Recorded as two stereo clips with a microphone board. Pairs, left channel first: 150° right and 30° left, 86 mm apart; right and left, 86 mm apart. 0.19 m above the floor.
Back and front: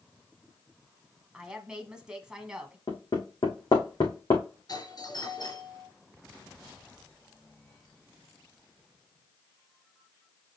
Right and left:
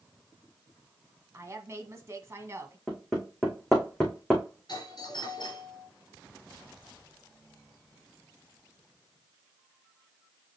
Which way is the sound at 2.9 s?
Straight behind.